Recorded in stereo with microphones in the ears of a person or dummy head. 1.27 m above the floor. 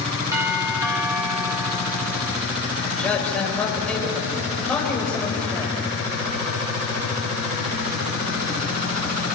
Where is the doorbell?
15° right (ahead or behind), 3 m.